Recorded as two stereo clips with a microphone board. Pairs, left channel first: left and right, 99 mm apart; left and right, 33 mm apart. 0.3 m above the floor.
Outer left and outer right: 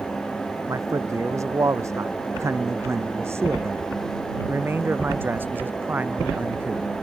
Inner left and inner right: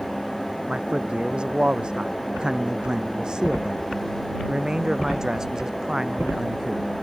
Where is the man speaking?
30° right (ahead or behind); by 6.9 s 15° right (ahead or behind).